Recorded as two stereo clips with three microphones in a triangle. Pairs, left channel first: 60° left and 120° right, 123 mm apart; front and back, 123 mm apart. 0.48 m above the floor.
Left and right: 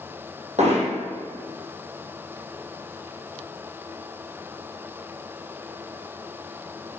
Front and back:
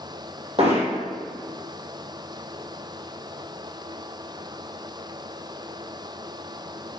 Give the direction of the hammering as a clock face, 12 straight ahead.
5 o'clock.